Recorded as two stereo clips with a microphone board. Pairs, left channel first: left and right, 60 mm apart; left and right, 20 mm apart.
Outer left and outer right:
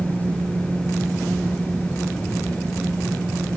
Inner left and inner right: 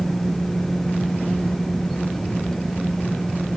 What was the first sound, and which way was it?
Only background noise.